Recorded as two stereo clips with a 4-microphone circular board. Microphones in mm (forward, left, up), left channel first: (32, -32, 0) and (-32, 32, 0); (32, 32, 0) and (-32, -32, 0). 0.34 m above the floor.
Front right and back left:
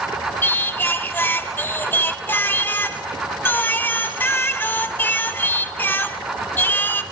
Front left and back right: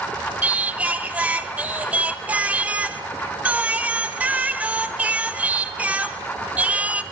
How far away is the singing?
About 0.7 m.